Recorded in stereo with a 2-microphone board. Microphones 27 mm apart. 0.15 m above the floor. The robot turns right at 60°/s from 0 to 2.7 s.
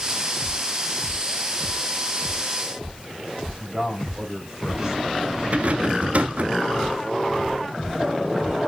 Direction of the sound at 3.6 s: 10° right (ahead or behind).